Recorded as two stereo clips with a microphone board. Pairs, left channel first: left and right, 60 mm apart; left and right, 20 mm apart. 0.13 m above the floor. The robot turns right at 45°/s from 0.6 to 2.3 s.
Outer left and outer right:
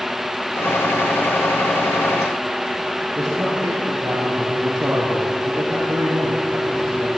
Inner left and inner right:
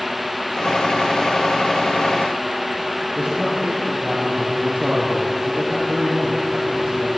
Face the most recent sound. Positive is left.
turn(degrees=-65)  # may be behind; listen again after turning